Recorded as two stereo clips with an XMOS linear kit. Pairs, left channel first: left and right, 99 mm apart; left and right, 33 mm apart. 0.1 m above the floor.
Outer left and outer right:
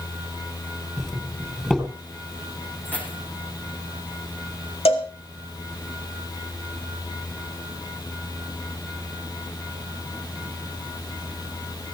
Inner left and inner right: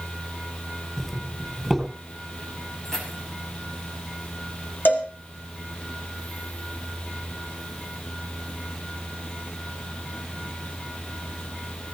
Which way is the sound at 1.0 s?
5° left (ahead or behind).